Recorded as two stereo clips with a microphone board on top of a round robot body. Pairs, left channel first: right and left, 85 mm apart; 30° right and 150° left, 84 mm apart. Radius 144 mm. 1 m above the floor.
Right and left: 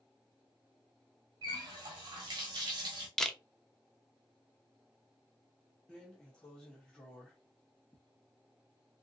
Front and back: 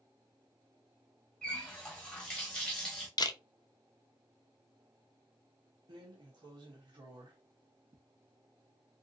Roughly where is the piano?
I don't hear a piano.